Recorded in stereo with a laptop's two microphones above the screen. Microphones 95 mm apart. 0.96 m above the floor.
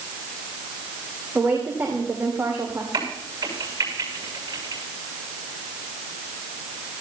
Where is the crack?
40° right (ahead or behind), 7 m.